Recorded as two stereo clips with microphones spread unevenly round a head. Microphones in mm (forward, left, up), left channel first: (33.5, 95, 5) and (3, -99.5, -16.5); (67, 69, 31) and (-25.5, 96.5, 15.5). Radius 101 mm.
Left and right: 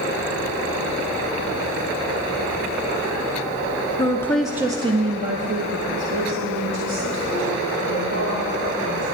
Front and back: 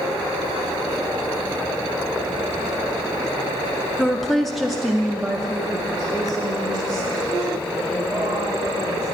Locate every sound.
4.0 s a woman speaking: 95° left, 0.6 m; by 9.0 s 110° right, 3 m